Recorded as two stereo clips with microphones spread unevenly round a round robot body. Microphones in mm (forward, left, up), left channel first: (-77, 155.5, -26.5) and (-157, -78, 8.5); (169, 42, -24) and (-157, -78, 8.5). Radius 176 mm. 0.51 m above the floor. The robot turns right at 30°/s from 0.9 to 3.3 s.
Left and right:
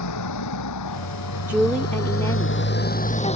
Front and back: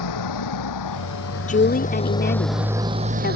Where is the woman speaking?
15° right; by 3.4 s 40° left.